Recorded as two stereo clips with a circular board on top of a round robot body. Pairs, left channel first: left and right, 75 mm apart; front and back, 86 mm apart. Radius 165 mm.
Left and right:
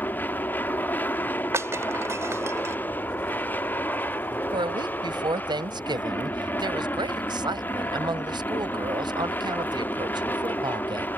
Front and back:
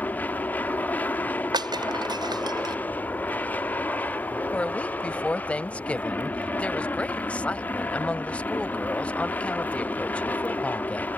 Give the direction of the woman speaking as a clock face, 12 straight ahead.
3 o'clock.